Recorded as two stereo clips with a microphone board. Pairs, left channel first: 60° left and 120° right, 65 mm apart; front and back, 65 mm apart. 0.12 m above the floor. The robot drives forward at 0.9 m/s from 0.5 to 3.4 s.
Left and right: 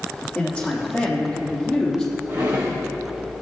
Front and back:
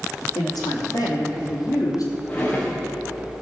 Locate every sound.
0.3 s a man speaking: 15° right, 4 m; by 2.1 s 20° right, 3 m
2.3 s a drawer: 65° right, 3.5 m; by 2.8 s 75° right, 3 m